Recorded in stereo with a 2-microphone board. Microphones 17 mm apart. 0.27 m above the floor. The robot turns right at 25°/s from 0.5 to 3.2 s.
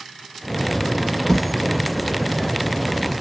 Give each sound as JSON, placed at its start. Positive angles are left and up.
{"t": 1.3, "sound": "a thud", "side_deg": 15, "distance_m": 1.8}